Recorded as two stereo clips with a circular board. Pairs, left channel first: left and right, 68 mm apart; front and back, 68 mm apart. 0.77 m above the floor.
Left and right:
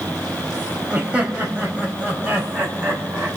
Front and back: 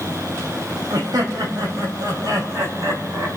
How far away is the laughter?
About 4 m.